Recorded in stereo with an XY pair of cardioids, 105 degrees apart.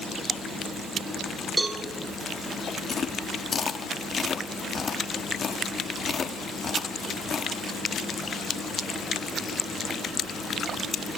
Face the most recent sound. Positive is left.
turn(degrees=40)